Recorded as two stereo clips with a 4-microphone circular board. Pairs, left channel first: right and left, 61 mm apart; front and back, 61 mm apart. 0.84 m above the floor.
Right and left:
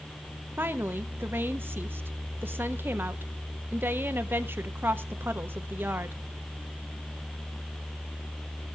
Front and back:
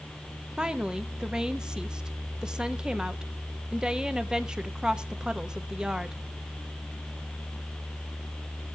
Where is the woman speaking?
110° left, 1.1 m.